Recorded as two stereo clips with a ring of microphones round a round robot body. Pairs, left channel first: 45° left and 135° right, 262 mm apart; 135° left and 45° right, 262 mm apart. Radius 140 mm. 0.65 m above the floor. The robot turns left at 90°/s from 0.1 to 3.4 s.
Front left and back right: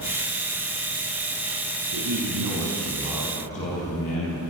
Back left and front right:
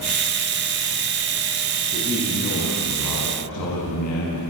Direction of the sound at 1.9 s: 105° right.